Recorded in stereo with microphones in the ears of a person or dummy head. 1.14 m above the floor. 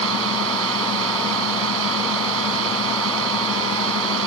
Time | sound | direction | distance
0.0 | a drone | 65° right (ahead or behind) | ?